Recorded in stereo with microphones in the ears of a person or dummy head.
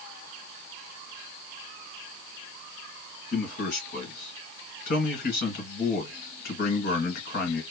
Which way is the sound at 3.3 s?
55° left (ahead or behind).